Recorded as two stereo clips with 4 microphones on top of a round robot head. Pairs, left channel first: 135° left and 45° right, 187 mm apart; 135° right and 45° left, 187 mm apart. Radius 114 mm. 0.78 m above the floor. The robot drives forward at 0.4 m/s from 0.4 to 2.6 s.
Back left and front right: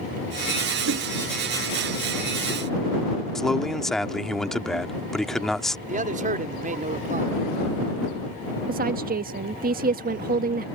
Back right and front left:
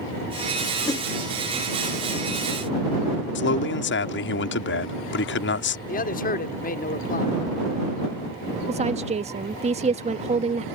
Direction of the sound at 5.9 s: 90° right.